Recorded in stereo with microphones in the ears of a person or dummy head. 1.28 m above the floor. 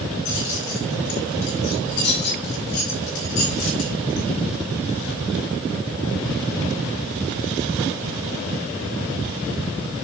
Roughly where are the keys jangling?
Left.